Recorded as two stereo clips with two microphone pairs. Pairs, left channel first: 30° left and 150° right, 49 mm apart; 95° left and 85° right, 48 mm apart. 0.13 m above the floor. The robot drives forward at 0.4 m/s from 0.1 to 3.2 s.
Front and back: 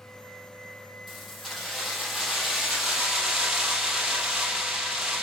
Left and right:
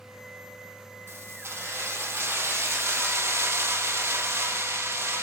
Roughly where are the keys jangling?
Ahead right.